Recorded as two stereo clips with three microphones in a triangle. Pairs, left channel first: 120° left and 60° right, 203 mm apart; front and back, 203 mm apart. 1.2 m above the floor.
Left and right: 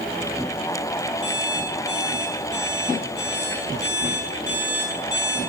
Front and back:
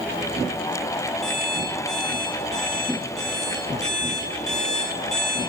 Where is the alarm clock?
90° left, 4.5 m.